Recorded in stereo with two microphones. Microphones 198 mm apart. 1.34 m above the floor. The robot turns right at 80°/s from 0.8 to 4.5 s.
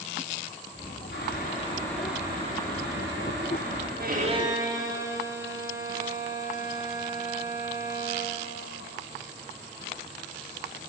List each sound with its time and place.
1.1 s boiling: 110° left, 4 m; by 3.9 s 30° right, 4 m
4.0 s a violin: 55° right, 1.4 m; by 8.4 s 15° right, 1.4 m